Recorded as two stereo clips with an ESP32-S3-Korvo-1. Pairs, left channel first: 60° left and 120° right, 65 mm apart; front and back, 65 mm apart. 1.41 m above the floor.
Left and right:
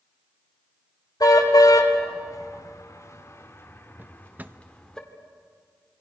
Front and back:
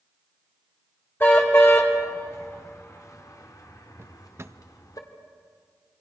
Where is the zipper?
No zipper in this recording.